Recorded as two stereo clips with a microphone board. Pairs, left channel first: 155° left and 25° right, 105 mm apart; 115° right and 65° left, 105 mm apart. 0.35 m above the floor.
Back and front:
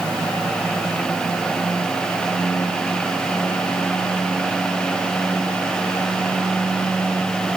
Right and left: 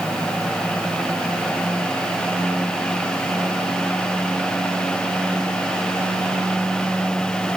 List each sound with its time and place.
Only background noise.